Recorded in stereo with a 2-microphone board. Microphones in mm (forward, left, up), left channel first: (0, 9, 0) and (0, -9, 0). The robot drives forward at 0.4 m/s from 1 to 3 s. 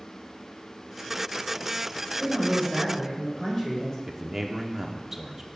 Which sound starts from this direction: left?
A man speaking, at 2.2 s.